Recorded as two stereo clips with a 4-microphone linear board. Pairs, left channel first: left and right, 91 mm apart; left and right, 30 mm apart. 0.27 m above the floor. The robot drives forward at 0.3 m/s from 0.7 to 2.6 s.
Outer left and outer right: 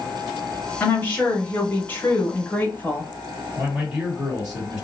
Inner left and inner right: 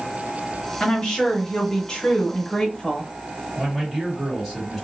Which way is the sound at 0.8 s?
20° left (ahead or behind).